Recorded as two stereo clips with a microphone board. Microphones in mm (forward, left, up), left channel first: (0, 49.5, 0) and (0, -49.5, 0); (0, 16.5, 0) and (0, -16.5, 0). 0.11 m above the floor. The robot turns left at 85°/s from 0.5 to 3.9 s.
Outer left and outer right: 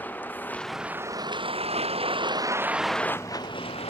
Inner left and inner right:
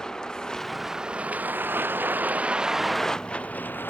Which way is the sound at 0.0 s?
20° left (ahead or behind).